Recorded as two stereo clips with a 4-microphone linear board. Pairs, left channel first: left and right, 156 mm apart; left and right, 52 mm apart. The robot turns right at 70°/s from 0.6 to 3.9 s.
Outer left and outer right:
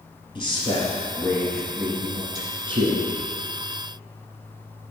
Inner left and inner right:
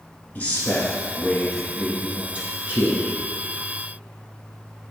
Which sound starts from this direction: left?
A man speaking, at 0.3 s.